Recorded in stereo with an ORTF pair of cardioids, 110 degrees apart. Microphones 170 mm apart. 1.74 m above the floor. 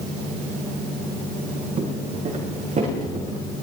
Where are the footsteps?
45° right, 5.5 m.